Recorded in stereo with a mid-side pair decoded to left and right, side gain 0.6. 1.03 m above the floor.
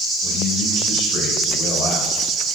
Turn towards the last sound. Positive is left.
turn(degrees=60)